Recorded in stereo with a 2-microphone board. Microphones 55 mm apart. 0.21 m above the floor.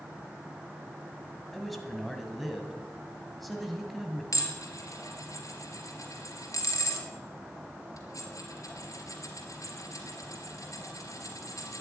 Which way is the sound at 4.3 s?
70° left (ahead or behind).